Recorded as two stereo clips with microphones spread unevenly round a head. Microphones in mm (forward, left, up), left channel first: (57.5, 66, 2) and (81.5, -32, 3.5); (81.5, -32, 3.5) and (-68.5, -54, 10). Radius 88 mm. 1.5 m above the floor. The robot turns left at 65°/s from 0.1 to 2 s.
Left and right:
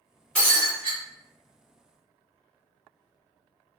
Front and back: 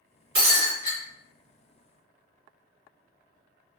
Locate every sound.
0.3 s breaking glass: 175° right, 1.8 m; by 1.0 s 140° left, 1.8 m